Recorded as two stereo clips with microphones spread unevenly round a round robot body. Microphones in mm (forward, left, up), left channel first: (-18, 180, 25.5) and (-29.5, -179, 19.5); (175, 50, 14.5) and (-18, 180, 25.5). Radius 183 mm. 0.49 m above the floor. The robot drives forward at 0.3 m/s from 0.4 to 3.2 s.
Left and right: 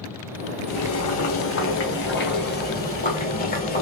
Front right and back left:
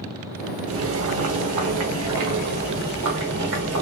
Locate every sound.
0.7 s boiling: 130° left, 0.8 m; by 3.8 s 155° left, 1.4 m